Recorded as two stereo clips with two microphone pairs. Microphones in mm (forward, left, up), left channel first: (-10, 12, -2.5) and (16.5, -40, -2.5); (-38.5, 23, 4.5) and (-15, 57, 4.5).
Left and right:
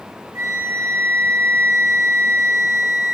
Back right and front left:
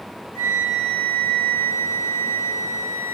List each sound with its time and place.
0.3 s a flute: 105° right, 4 m